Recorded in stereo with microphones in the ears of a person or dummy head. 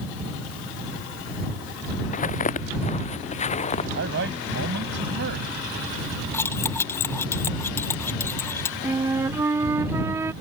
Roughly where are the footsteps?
Left.